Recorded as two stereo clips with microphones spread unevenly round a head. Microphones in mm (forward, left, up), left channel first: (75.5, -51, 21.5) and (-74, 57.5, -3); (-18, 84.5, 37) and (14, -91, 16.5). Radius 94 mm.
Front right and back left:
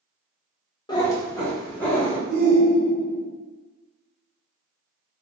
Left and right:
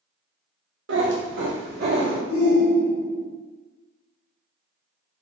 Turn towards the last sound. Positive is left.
turn(degrees=140)